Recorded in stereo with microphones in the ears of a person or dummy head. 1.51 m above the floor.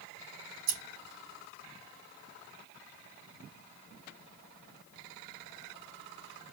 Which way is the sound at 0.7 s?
50° right (ahead or behind).